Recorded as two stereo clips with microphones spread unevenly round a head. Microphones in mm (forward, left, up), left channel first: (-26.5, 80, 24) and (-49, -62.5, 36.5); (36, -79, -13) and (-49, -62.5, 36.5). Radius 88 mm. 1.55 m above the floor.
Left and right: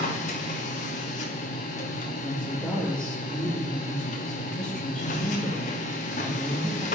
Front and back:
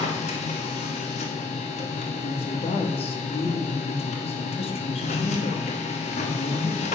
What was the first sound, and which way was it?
A machine running, 25° left.